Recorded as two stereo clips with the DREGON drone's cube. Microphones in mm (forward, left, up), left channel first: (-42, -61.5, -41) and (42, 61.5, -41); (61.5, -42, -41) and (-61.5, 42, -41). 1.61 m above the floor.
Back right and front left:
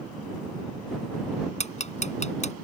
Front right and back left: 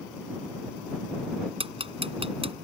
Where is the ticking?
165° right.